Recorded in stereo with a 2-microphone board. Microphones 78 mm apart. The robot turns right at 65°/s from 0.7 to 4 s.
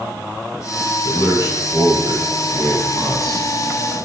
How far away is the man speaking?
About 1.6 m.